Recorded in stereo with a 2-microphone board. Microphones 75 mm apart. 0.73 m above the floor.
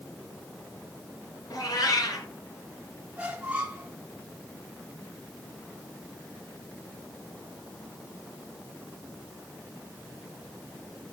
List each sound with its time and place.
1.5 s a cat meowing: 55° left (ahead or behind), 3 m
3.2 s a squeak: 15° right (ahead or behind), 2 m